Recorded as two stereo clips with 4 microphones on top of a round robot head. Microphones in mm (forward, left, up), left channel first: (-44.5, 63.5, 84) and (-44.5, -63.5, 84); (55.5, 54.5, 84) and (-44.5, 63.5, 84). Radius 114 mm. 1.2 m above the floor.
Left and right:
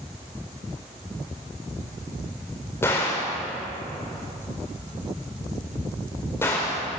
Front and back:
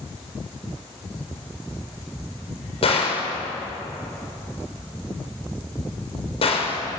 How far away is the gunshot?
About 6 m.